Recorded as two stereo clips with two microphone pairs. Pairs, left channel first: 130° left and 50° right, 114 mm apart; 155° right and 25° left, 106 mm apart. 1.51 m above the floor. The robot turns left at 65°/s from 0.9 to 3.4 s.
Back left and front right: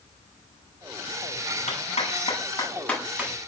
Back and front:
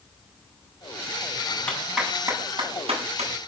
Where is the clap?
130° left, 10 m; by 3.5 s 15° left, 10 m.